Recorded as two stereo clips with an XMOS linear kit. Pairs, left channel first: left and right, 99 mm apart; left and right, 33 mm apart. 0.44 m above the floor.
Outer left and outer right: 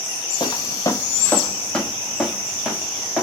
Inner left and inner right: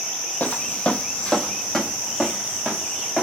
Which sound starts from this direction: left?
Footsteps, at 0.4 s.